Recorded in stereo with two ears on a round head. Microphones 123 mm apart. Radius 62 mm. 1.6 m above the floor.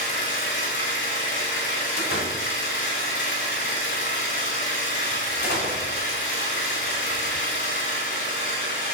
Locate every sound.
0.0 s an engine running: 65° left (ahead or behind), 5 m
2.0 s a door slam: 75° left (ahead or behind), 4 m